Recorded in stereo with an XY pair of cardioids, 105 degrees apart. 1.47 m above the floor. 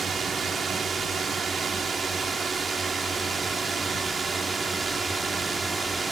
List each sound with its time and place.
0.0 s a drone: 35° right; by 6.1 s 20° right